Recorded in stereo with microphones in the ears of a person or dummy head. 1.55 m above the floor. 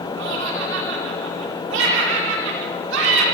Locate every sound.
0.2 s laughter: 70° right (ahead or behind), 5 m